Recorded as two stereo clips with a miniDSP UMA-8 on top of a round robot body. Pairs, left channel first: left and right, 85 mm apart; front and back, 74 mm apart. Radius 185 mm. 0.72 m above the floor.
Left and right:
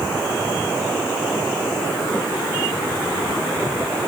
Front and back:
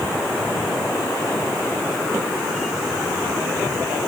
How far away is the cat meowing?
I don't hear a cat meowing.